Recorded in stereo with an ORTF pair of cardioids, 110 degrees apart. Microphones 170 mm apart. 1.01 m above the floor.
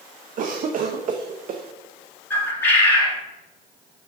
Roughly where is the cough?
Ahead right.